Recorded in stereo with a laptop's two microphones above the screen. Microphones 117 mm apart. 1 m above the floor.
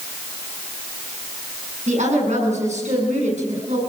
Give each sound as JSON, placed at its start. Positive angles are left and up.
{"t": 1.9, "sound": "a woman speaking", "side_deg": -85, "distance_m": 8.5}